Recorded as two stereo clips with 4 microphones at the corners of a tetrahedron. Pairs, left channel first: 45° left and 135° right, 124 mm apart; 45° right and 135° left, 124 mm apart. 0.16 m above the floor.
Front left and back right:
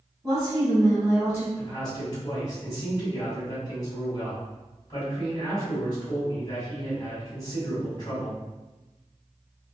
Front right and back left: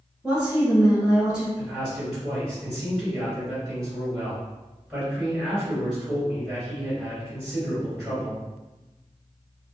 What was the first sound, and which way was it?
A woman speaking, 150° right.